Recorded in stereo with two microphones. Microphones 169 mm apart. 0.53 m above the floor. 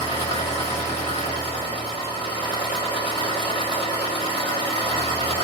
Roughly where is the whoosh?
No whoosh in this recording.